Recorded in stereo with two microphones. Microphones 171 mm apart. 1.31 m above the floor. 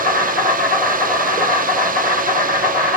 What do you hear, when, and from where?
0.0 s an insect: 45° left (ahead or behind), 2 m